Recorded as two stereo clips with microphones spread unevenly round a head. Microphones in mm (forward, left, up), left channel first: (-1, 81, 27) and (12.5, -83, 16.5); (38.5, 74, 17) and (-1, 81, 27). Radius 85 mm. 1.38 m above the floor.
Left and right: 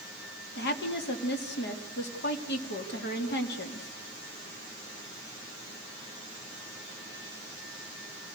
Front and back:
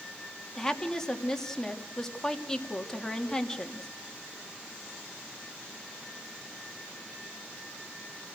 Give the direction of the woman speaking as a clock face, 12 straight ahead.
10 o'clock.